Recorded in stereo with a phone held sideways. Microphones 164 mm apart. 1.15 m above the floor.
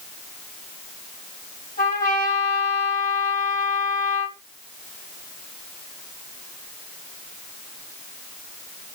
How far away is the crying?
No crying in this recording.